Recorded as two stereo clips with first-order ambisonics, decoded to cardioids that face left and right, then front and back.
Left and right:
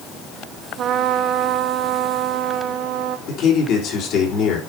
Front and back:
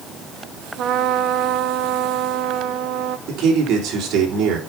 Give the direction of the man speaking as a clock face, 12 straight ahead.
8 o'clock.